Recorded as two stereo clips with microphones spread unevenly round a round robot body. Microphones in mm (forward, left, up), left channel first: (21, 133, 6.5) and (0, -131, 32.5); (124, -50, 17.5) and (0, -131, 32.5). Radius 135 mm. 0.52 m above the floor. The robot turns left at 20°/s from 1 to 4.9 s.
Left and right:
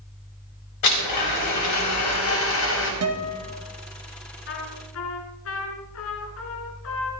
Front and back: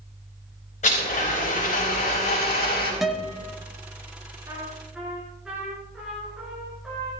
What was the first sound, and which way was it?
A blender, 85° left.